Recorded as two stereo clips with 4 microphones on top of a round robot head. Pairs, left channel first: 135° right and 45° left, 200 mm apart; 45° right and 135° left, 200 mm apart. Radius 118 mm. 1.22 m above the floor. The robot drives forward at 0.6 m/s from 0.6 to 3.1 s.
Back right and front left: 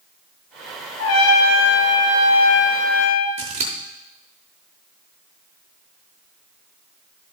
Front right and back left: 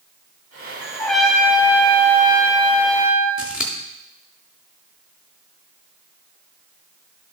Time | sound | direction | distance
1.0 | a trumpet | 130° right | 1.0 m
3.4 | scissors | 55° left | 0.8 m